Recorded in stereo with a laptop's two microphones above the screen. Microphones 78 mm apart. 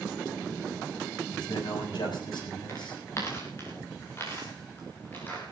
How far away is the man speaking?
About 6.5 m.